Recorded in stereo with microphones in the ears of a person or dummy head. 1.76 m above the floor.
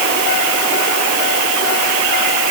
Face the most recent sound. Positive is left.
No sound to turn to.